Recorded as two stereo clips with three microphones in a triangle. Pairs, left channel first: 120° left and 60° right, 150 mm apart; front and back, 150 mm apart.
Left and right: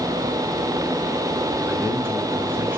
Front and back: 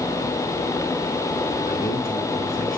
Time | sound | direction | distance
1.7 | a man speaking | 15° left | 7 m